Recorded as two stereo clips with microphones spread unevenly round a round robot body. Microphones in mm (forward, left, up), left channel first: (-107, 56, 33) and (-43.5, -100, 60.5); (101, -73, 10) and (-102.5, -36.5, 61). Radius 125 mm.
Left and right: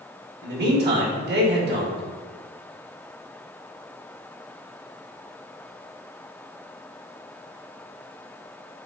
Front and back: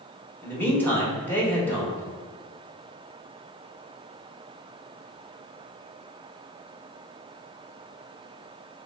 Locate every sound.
0.4 s a man speaking: 80° right, 1.4 m